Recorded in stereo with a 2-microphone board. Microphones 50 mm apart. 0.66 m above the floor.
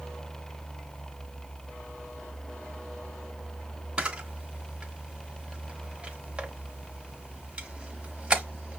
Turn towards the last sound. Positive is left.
turn(degrees=-20)  # may be behind; listen again after turning